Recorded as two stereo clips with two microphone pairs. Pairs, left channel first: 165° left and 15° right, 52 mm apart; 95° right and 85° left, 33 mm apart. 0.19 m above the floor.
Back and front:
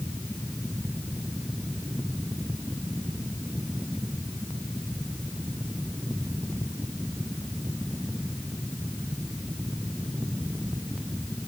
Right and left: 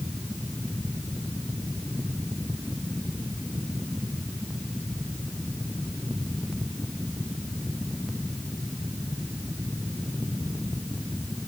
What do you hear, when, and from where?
Only background noise.